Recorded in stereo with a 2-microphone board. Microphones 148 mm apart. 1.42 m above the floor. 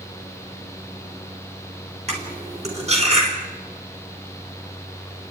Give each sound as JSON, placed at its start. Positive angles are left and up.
{"t": 2.1, "sound": "cutlery clinking", "side_deg": -45, "distance_m": 4.0}